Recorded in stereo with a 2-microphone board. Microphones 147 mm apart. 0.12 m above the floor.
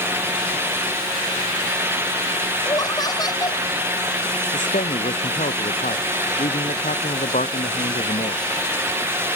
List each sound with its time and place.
2.6 s laughter: 30° left (ahead or behind)
4.5 s a man speaking: 65° left (ahead or behind)